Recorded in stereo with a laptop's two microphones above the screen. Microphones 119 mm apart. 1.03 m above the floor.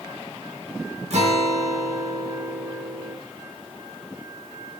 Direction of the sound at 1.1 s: 65° right (ahead or behind).